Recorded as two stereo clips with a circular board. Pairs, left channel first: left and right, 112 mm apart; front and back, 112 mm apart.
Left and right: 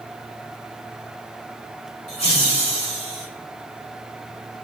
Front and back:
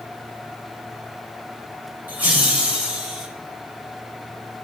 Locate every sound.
2.1 s laughter: 105° left, 3.5 m; by 3.3 s 95° left, 4 m